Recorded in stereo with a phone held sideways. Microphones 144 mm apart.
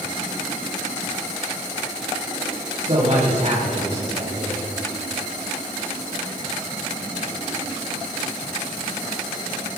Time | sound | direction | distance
2.8 | a man speaking | 55° right (ahead or behind) | 6.5 m